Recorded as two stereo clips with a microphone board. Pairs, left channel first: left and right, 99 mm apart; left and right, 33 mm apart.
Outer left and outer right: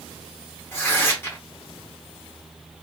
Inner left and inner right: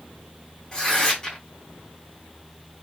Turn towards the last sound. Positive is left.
turn(degrees=25)  # may be behind; listen again after turning